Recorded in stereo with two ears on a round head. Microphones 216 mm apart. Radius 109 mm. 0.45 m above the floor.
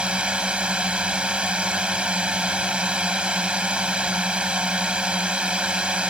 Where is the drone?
5° right (ahead or behind).